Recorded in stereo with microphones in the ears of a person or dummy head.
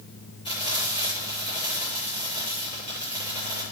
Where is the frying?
30° left (ahead or behind), 6 m.